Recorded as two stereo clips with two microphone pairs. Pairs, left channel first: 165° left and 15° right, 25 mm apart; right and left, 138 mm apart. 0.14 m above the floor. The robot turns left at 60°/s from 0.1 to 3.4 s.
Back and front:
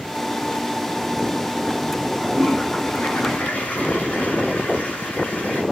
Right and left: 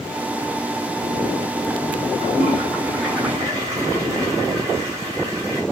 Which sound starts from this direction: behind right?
A toilet flushing, at 2.2 s.